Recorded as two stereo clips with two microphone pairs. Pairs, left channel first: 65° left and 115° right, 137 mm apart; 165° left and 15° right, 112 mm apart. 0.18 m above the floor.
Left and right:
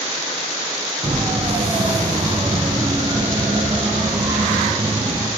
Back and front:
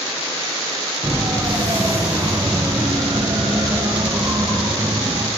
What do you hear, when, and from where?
1.0 s a siren: 75° right, 5 m; by 5.3 s 65° right, 7 m